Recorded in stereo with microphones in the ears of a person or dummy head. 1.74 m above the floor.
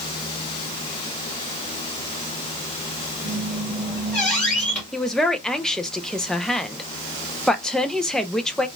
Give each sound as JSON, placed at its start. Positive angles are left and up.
{"t": 3.2, "sound": "a squeak", "side_deg": 5, "distance_m": 2.5}
{"t": 4.9, "sound": "a man speaking", "side_deg": 5, "distance_m": 0.5}